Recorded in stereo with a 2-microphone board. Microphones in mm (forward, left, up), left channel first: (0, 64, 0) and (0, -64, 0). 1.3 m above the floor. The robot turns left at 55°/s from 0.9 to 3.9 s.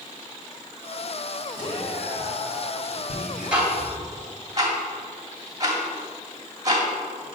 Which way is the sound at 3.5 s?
5° right (ahead or behind).